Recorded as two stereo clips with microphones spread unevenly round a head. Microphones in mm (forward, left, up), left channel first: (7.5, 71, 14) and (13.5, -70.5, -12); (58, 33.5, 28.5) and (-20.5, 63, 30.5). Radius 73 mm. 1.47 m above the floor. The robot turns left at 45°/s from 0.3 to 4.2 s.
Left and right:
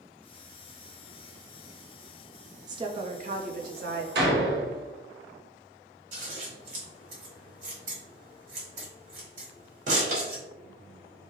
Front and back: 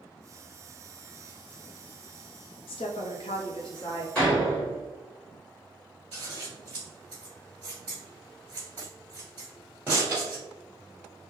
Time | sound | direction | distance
2.7 | a woman speaking | 25° right | 0.6 m
4.2 | a door slam | 105° right | 0.8 m
6.1 | scissors | 125° right | 1.5 m